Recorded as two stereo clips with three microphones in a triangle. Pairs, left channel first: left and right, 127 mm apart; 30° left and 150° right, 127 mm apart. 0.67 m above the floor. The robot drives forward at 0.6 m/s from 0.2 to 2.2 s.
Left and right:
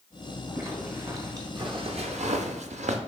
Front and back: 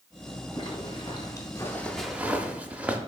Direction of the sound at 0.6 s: 20° right.